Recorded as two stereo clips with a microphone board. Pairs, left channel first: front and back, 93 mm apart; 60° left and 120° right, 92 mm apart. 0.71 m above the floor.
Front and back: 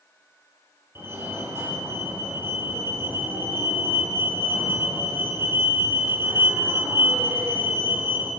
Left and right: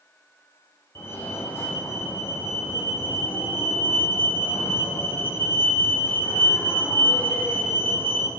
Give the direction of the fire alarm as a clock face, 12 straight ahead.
8 o'clock.